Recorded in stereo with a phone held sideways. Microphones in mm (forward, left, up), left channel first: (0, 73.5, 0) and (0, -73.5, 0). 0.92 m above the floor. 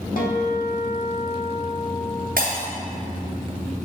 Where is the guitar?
75° left (ahead or behind), 1.4 m.